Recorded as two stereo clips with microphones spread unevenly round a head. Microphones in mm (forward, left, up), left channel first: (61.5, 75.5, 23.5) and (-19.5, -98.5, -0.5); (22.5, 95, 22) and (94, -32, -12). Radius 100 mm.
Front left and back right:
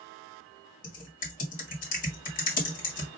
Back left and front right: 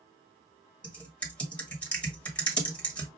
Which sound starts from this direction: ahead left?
Typing on a keyboard, at 0.8 s.